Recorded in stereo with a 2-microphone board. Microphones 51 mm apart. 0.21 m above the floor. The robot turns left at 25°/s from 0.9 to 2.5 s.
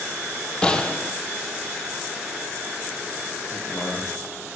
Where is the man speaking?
50° left (ahead or behind), 7.5 m.